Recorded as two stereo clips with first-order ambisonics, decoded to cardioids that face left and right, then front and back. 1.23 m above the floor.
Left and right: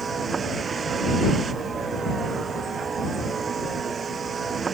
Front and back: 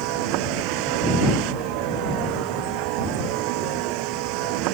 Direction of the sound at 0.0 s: 160° right.